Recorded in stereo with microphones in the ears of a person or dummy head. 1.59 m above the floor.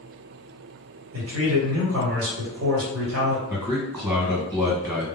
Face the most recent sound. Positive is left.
turn(degrees=-15)  # may be behind; listen again after turning